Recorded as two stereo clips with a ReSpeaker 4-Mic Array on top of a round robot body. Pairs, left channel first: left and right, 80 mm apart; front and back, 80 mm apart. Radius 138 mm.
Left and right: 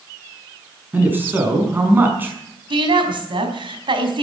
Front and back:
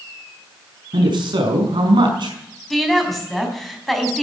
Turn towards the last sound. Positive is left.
turn(degrees=-85)